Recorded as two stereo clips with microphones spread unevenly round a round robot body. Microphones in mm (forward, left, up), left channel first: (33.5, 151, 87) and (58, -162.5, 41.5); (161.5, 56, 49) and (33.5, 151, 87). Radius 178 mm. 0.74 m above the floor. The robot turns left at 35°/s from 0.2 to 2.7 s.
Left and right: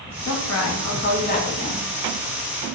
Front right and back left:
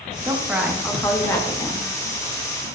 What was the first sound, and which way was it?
A woman speaking, 65° left.